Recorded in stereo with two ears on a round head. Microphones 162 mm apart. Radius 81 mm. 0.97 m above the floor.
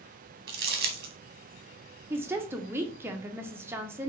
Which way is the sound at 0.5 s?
55° right (ahead or behind).